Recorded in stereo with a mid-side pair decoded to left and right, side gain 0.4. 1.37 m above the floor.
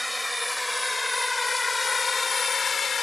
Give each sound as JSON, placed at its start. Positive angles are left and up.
{"t": 0.0, "sound": "a drone", "azimuth_deg": 5}